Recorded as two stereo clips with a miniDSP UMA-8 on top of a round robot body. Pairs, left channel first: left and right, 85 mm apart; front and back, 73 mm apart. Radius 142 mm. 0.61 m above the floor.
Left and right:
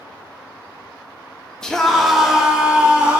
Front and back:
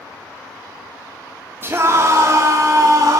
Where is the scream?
165° left, 1.3 m; by 3.2 s 160° right, 1.8 m.